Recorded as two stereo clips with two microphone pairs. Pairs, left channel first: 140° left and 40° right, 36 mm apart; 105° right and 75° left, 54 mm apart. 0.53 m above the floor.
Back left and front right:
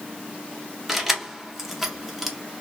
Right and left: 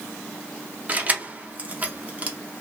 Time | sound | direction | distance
0.9 | keys jangling | 40° left | 0.5 m